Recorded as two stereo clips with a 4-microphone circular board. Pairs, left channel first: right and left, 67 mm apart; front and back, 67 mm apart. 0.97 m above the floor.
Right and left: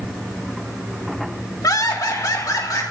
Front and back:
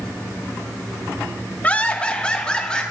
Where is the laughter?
65° right, 1.4 m; by 2.8 s 75° right, 3 m.